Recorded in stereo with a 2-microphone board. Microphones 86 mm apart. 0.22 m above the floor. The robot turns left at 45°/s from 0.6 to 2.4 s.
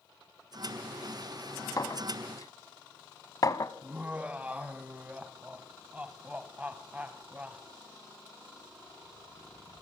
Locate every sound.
1.8 s a clink: 45° left (ahead or behind), 0.8 m
3.8 s laughter: 20° right (ahead or behind), 1.1 m